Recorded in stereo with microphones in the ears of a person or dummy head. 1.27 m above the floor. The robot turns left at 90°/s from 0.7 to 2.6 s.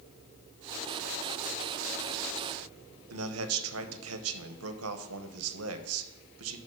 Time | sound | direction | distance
3.1 | a man speaking | 80° right | 1.0 m